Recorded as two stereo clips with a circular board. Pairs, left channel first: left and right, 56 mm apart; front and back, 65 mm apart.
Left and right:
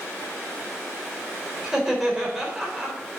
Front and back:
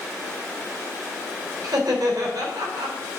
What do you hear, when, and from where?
1.6 s laughter: 170° right, 3.5 m